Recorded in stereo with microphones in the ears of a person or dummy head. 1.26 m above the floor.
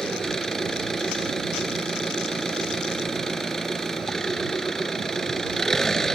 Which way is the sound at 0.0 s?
5° left (ahead or behind).